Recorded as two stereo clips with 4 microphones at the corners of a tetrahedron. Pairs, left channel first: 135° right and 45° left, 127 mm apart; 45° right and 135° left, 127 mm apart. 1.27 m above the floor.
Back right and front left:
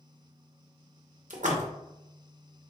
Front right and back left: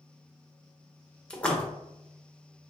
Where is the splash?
35° left, 0.9 m.